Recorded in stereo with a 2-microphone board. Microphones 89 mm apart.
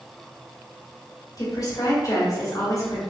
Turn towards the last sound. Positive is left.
turn(degrees=45)  # may be behind; listen again after turning